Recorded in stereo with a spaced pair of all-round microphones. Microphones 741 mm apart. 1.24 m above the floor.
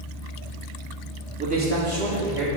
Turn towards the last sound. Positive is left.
turn(degrees=-35)  # may be behind; listen again after turning